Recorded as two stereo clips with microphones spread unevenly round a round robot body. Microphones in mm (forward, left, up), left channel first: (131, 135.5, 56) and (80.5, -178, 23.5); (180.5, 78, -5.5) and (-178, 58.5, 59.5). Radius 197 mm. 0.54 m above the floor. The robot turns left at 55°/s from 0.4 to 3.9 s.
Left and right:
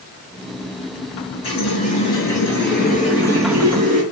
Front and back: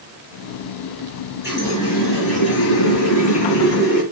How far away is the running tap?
About 5.5 m.